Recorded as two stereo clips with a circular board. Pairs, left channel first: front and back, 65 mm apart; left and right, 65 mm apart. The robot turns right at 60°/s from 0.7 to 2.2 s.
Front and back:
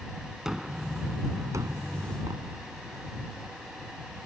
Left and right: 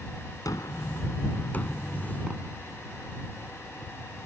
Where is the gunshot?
100° left; by 3.9 s 170° right.